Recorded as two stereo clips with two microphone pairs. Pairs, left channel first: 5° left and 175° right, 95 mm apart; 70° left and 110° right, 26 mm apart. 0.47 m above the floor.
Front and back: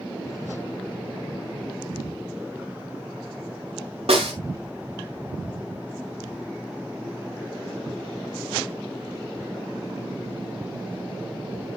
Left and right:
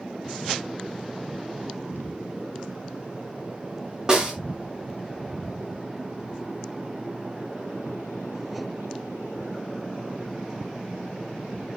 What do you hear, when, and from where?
4.1 s a snare drum: 175° right, 4 m